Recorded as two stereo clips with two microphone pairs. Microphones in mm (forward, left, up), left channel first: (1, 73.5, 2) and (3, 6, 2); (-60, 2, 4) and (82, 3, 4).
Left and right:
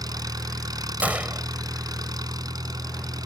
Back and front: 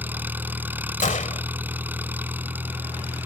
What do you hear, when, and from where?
0.0 s an engine running: 75° right
1.0 s a gunshot: 155° right